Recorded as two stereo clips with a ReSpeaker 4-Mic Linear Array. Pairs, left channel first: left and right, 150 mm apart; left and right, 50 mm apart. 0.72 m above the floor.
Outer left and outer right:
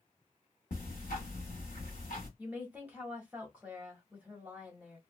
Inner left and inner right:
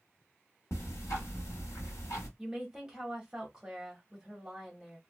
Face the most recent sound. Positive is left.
turn(degrees=-10)  # may be behind; listen again after turning